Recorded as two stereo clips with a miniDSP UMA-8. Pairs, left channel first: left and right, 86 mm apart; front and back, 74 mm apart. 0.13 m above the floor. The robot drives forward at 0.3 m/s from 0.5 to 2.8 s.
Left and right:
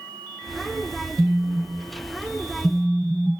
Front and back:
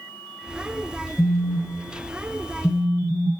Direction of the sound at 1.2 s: 15° right.